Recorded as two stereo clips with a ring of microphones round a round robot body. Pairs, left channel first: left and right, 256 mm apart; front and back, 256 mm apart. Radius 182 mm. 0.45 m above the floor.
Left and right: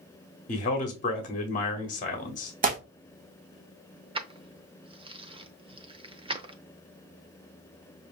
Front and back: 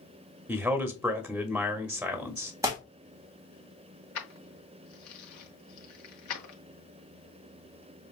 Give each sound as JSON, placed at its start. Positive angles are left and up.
{"t": 0.5, "sound": "a man speaking", "azimuth_deg": 100, "distance_m": 1.0}
{"t": 2.6, "sound": "tearing paper", "azimuth_deg": -110, "distance_m": 1.2}
{"t": 4.2, "sound": "keys jangling", "azimuth_deg": -20, "distance_m": 0.8}